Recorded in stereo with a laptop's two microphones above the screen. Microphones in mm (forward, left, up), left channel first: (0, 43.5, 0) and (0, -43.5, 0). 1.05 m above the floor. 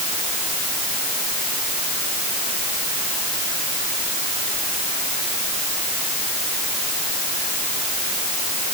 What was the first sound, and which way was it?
Only background noise.